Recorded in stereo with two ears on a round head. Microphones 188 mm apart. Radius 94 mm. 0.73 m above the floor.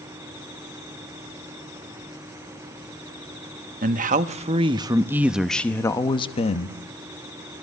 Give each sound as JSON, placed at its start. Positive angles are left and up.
{"t": 3.8, "sound": "a man speaking", "side_deg": -45, "distance_m": 1.3}